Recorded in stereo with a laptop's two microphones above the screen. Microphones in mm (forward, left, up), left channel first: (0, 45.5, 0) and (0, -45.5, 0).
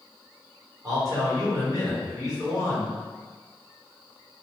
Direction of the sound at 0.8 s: 40° right (ahead or behind).